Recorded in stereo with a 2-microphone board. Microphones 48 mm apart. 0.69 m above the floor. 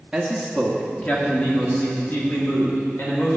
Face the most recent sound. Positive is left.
turn(degrees=50)  # may be behind; listen again after turning